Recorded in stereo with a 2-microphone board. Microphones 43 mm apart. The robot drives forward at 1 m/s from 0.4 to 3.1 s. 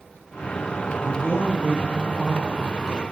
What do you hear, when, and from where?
1.0 s a man speaking: 35° right (ahead or behind), 3.5 m; by 3.1 s 25° right (ahead or behind), 5 m